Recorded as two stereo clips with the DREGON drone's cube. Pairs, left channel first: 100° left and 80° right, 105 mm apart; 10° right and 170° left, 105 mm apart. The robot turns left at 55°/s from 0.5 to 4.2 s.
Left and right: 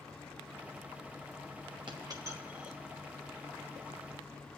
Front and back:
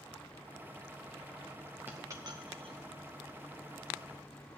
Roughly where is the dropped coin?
Behind right.